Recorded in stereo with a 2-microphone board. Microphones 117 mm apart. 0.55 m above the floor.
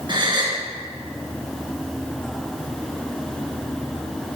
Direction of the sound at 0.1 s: 45° right (ahead or behind).